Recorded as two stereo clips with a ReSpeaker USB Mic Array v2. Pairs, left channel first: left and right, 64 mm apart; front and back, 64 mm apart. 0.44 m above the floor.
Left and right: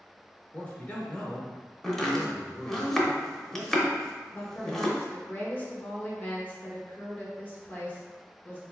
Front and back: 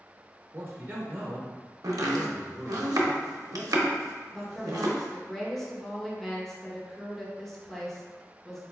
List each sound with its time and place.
0.5 s a man speaking: 150° left, 0.9 m
1.8 s chopping: 175° left, 0.6 m
4.3 s a woman speaking: 80° left, 0.8 m